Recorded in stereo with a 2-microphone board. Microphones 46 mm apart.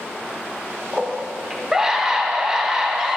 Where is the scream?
10° right (ahead or behind), 0.7 m.